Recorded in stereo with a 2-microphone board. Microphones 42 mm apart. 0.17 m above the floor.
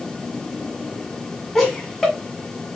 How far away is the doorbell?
I don't hear a doorbell.